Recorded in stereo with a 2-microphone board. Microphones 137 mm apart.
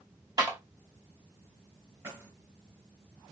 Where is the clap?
30° right (ahead or behind), 1.9 m.